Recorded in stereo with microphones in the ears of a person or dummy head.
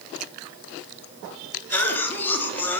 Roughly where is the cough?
Centre.